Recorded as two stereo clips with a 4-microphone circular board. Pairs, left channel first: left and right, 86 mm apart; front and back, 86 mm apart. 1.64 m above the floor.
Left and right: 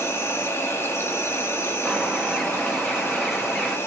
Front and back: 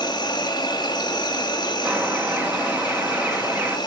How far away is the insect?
About 1.0 m.